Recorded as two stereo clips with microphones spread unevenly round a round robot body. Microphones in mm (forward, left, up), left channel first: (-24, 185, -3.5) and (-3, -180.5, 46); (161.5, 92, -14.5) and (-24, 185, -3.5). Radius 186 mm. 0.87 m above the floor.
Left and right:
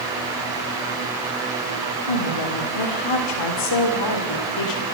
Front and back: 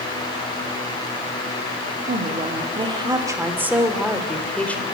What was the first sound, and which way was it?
A woman speaking, 100° left.